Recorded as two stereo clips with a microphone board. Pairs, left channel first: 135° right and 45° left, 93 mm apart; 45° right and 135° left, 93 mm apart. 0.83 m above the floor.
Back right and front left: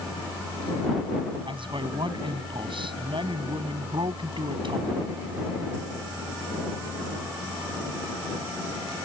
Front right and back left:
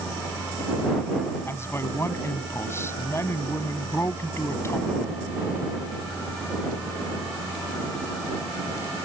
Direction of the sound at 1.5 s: 15° left.